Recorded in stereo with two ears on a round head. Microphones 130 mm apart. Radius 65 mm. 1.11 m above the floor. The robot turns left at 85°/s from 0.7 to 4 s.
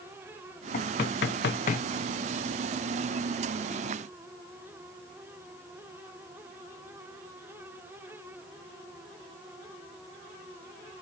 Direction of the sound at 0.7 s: 45° left (ahead or behind).